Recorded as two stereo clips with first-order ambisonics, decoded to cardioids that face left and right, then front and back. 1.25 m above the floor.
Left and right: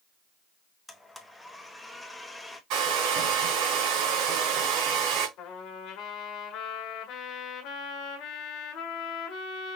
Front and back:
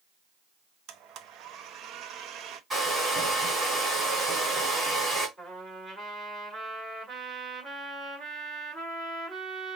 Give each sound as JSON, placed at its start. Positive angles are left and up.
{"t": 0.9, "sound": "a blender", "azimuth_deg": 170, "distance_m": 0.7}
{"t": 2.7, "sound": "a hair dryer", "azimuth_deg": -100, "distance_m": 2.5}
{"t": 5.4, "sound": "a trumpet", "azimuth_deg": 100, "distance_m": 1.5}